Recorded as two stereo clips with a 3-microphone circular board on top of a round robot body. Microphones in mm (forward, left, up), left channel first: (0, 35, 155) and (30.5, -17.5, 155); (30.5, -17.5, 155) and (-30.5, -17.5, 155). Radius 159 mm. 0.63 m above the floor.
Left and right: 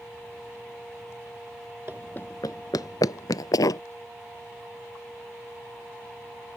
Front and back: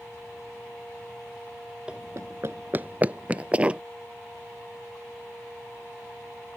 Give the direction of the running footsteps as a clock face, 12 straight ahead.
4 o'clock.